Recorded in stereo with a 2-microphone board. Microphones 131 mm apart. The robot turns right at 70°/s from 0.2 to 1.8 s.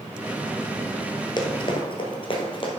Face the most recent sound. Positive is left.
turn(degrees=40)  # may be behind; listen again after turning